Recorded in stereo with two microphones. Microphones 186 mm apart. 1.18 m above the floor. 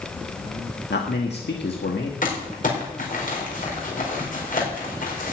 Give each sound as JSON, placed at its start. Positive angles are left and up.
{"t": 0.9, "sound": "a man speaking", "side_deg": 85, "distance_m": 1.6}
{"t": 2.2, "sound": "crumpling", "side_deg": 55, "distance_m": 4.5}